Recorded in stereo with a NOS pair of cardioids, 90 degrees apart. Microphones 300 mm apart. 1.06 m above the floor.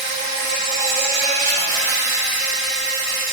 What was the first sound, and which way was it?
An insect, 70° right.